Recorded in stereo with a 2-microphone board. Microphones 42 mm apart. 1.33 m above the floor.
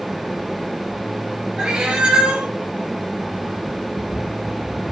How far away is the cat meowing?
About 0.6 m.